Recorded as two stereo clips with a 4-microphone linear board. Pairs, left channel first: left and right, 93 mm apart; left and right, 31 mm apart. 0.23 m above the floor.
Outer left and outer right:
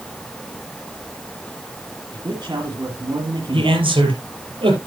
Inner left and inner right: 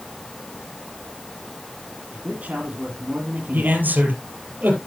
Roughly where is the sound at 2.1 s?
Right.